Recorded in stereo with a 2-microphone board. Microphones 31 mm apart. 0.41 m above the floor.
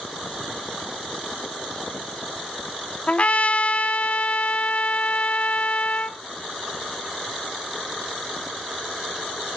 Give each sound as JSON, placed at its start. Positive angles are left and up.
{"t": 3.1, "sound": "a trumpet", "side_deg": 45, "distance_m": 0.5}